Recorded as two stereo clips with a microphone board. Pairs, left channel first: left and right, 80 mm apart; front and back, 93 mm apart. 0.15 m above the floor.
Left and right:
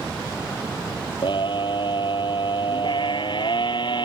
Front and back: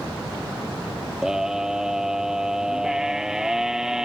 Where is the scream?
95° left.